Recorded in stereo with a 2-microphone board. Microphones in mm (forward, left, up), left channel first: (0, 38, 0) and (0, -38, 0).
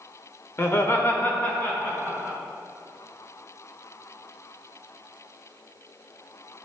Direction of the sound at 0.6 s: 35° left (ahead or behind).